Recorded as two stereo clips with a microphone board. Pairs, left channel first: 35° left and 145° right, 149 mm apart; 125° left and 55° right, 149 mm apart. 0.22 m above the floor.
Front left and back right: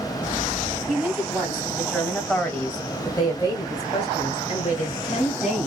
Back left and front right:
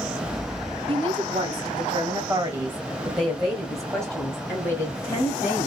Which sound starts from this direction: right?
A woman speaking, at 0.9 s.